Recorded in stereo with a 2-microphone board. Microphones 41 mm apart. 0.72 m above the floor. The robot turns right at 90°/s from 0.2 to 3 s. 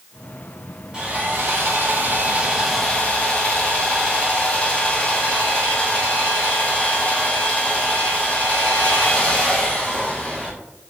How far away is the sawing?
About 1.3 m.